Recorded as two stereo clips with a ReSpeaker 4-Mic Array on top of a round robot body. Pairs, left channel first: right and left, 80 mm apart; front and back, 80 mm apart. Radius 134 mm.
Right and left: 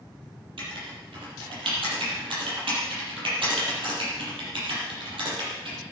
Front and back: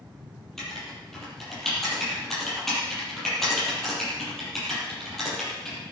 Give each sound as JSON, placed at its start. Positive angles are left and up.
{"t": 0.6, "sound": "writing", "azimuth_deg": 85, "distance_m": 8.0}